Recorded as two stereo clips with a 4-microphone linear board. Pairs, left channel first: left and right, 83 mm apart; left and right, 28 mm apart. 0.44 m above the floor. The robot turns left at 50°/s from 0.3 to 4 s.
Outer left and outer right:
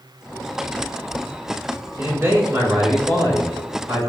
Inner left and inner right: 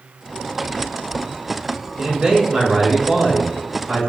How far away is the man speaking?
About 1.5 m.